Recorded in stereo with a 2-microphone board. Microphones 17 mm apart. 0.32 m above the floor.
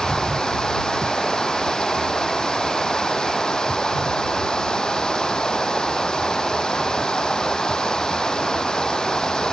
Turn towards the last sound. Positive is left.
turn(degrees=50)  # may be behind; listen again after turning